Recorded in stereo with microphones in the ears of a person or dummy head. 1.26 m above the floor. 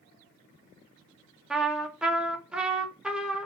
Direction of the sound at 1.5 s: Centre (ahead or behind).